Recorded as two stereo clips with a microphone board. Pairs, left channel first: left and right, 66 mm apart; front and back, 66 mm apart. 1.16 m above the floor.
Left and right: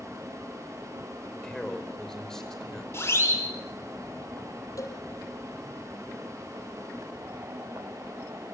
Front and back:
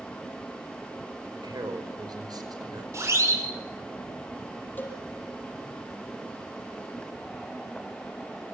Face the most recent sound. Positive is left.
turn(degrees=60)